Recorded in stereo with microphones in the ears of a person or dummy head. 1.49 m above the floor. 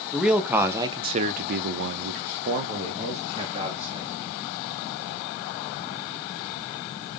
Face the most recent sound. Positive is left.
turn(degrees=-35)  # may be behind; listen again after turning